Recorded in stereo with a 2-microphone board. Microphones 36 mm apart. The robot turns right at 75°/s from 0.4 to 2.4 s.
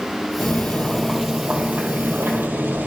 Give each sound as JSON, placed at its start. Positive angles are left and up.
{"t": 0.4, "sound": "boiling", "azimuth_deg": 120, "distance_m": 2.5}